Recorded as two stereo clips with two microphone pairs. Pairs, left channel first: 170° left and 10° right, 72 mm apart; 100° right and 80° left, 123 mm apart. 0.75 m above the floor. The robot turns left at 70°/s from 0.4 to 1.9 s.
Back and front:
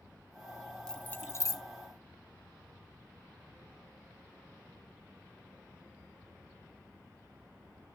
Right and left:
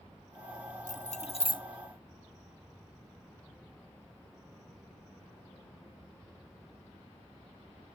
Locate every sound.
0.9 s keys jangling: 105° right, 0.6 m; by 1.6 s 160° right, 0.6 m